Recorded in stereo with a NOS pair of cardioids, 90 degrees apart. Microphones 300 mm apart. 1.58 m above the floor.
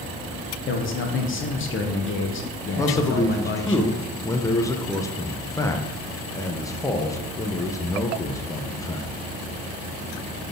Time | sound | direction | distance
0.7 | a man speaking | 45° left | 1.3 m
2.8 | a man speaking | 10° left | 0.9 m